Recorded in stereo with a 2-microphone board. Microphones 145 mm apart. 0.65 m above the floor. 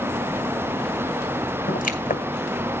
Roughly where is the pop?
Left.